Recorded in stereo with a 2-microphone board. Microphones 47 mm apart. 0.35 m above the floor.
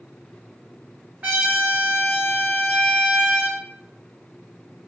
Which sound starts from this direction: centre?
A trumpet, at 1.2 s.